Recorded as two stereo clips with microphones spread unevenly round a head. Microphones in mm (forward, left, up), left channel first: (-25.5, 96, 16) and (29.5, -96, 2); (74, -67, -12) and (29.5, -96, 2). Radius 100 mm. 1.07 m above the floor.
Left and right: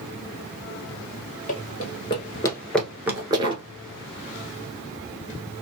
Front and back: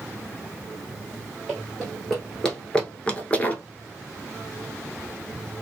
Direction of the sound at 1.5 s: 140° left.